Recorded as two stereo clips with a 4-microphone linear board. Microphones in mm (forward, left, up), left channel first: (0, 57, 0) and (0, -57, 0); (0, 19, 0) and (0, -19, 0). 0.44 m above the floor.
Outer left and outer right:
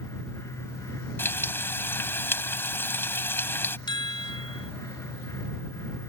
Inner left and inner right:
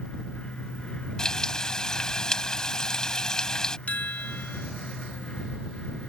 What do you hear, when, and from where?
1.2 s frying: 20° left (ahead or behind)
3.9 s a chime: 40° left (ahead or behind)